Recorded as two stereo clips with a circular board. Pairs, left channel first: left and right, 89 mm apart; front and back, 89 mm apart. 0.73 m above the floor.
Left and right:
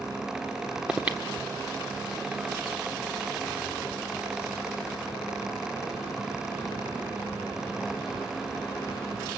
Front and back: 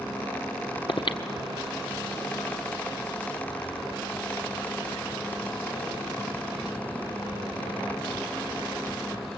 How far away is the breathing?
About 1.5 m.